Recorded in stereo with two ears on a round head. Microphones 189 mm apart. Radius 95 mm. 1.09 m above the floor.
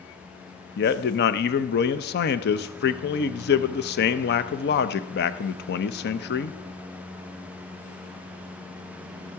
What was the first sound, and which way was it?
A man speaking, 50° left (ahead or behind).